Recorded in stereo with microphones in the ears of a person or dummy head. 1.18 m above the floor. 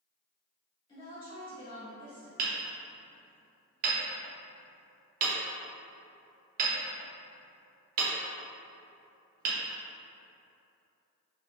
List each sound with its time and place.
0.9 s a woman speaking: 30° left (ahead or behind), 1.7 m
2.4 s hammering: 50° right (ahead or behind), 0.8 m